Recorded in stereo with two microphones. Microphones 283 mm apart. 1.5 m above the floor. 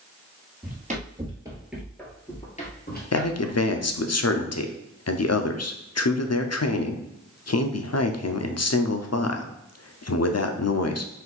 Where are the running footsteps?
30° right (ahead or behind), 1.8 m; by 4.0 s 50° left (ahead or behind), 2.5 m.